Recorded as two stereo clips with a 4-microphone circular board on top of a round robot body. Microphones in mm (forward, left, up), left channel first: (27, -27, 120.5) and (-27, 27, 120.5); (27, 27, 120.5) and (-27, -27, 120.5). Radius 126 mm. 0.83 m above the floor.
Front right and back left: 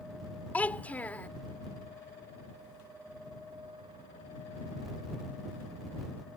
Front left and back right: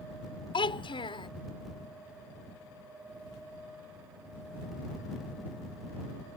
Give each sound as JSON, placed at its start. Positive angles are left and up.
{"t": 0.5, "sound": "a child speaking", "azimuth_deg": 30}